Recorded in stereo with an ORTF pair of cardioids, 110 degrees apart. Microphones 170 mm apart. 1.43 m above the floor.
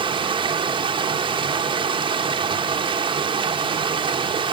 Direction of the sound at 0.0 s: 30° right.